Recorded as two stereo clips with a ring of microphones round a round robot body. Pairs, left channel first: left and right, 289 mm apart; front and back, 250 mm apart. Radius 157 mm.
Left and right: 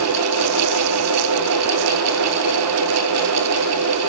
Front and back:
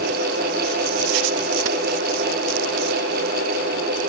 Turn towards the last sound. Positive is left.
No sound to turn to.